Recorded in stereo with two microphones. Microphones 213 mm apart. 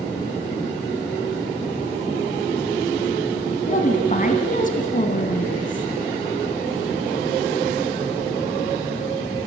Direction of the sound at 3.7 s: 40° left (ahead or behind).